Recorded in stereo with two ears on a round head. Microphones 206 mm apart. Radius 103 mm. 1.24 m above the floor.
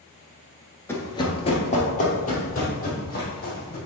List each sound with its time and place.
0.9 s running footsteps: 10° left (ahead or behind), 1.2 m; by 3.8 s 40° left (ahead or behind), 4 m